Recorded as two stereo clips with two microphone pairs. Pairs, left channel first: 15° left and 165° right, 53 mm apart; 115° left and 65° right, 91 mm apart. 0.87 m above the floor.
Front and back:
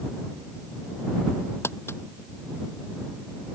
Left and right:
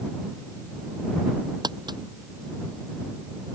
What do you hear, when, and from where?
1.6 s crumpling: 25° right